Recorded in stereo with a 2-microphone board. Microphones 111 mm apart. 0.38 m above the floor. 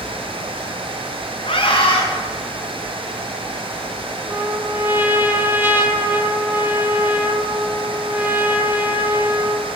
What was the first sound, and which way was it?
A scream, 55° left (ahead or behind).